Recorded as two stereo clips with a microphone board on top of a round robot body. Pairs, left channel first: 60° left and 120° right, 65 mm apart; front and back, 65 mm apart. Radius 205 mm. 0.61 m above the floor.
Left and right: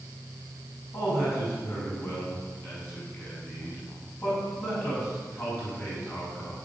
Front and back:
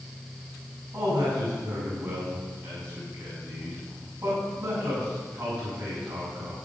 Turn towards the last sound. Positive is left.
turn(degrees=110)